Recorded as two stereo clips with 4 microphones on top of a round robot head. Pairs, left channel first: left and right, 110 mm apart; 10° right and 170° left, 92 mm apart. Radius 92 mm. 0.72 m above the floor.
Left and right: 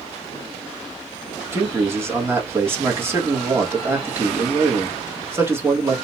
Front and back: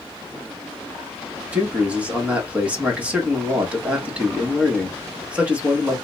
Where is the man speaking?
135° right, 1.1 m.